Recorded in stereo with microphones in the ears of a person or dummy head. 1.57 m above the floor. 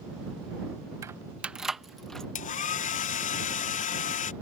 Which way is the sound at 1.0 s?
15° right (ahead or behind).